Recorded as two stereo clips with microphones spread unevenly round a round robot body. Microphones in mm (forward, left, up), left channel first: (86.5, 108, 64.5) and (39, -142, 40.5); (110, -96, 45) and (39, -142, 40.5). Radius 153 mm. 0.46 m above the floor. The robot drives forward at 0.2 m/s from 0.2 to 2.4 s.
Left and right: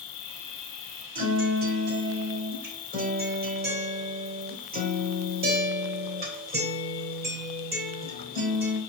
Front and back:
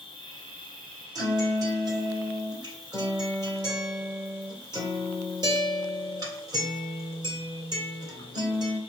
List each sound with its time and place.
0.0 s an insect: 65° left, 0.7 m; by 8.9 s 105° left, 0.7 m
1.1 s a guitar: 135° right, 2 m; by 8.8 s 140° right, 2 m